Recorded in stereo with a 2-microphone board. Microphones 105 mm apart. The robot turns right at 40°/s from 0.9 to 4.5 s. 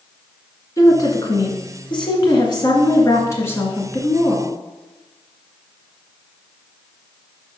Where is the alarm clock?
No alarm clock in this recording.